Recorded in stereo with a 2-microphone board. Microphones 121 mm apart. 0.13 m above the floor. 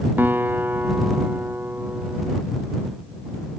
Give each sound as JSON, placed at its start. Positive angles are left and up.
{"t": 0.2, "sound": "a guitar", "side_deg": -15}